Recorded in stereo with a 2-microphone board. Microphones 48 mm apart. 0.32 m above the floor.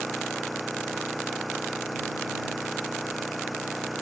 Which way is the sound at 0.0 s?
Centre (ahead or behind).